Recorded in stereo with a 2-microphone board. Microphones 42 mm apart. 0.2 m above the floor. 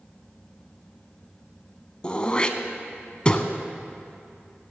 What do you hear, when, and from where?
2.0 s throat clearing: 20° left (ahead or behind), 0.7 m